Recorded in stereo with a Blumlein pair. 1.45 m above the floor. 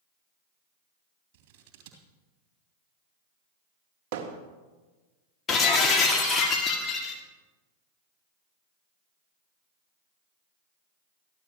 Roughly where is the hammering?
Ahead right.